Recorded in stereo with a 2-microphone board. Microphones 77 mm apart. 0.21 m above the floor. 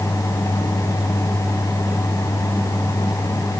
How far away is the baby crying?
No baby crying in this recording.